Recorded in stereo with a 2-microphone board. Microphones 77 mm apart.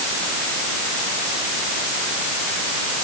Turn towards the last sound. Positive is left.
No sound to turn to.